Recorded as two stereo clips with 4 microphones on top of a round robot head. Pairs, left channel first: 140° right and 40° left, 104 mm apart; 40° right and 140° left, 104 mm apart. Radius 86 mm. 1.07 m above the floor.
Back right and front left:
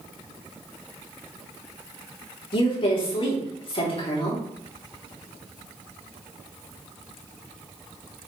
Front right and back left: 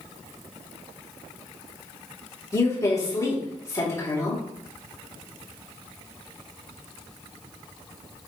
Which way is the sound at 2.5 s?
100° right.